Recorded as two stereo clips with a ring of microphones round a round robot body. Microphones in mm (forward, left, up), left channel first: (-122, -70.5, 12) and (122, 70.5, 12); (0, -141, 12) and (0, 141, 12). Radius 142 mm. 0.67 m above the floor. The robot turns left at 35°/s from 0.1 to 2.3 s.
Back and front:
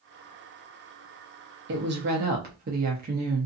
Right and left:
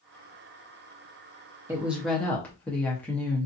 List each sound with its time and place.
1.7 s a woman speaking: 15° left, 0.7 m; by 3.5 s 10° right, 0.7 m